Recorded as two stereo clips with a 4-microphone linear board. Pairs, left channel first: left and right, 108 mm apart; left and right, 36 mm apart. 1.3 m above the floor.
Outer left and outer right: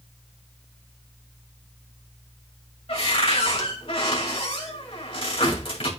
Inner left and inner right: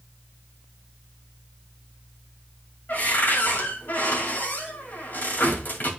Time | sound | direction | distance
2.9 | a cupboard door | 55° left (ahead or behind) | 2 m